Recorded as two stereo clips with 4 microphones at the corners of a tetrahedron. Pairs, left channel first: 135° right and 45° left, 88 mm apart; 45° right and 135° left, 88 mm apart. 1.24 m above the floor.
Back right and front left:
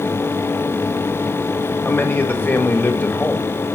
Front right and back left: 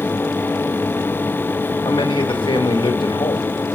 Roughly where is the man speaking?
Right.